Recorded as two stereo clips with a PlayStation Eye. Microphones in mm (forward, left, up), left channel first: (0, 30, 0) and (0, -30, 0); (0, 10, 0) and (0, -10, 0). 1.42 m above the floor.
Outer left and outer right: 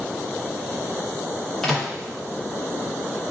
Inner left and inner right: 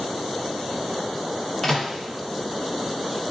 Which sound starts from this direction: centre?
A microwave, at 1.6 s.